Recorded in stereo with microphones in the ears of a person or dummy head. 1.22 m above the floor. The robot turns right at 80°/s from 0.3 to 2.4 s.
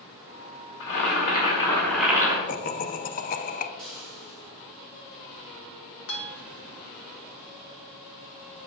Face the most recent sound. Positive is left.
turn(degrees=65)  # may be behind; listen again after turning